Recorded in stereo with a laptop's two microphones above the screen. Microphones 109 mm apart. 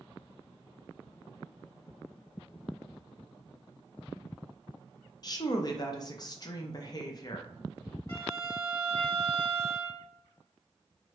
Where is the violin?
40° left (ahead or behind), 1.9 m.